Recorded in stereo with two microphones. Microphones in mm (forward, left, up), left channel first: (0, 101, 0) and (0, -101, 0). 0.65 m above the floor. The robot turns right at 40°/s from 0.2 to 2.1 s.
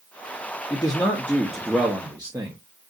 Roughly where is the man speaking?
Behind left.